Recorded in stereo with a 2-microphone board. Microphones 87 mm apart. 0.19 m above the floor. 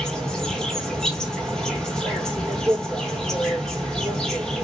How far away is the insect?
About 1.3 m.